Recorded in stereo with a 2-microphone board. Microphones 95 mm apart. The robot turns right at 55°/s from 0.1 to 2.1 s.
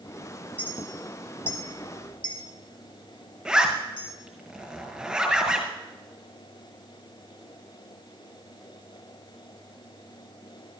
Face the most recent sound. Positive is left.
turn(degrees=-5)  # may be behind; listen again after turning